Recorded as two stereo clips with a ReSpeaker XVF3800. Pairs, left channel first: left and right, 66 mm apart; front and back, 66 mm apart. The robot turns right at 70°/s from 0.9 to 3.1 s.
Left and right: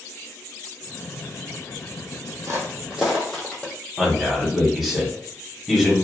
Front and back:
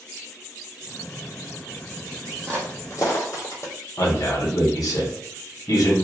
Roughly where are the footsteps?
Right.